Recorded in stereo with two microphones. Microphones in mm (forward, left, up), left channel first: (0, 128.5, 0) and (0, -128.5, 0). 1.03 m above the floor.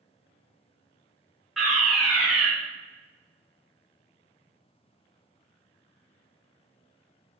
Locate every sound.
1.6 s a fire alarm: centre (ahead or behind), 3 m